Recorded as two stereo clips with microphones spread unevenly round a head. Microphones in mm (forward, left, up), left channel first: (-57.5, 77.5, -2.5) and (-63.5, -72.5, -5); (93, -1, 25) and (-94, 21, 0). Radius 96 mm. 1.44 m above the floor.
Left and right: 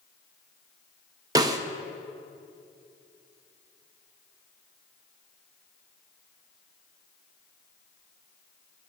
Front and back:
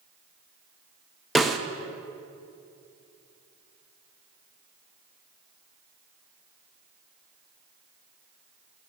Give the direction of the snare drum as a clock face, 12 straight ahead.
3 o'clock.